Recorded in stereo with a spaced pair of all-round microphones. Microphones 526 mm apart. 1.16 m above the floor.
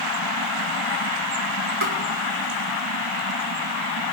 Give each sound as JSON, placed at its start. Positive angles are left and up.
{"t": 1.8, "sound": "tapping", "side_deg": -65, "distance_m": 2.0}